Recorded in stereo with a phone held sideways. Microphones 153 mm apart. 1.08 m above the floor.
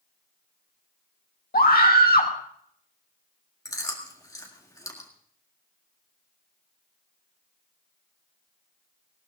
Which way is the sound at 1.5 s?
75° left (ahead or behind).